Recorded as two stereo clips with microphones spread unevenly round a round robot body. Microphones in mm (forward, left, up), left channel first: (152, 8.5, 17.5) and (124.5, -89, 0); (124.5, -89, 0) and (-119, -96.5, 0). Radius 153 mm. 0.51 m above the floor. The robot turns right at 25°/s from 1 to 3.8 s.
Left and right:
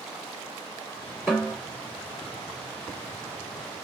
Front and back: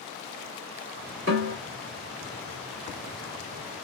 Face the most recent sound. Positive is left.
turn(degrees=-155)